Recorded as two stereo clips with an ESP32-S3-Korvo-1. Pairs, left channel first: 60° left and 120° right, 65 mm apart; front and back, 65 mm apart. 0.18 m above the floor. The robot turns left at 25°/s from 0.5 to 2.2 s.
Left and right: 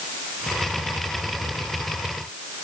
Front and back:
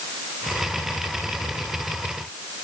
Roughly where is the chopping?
I don't hear chopping.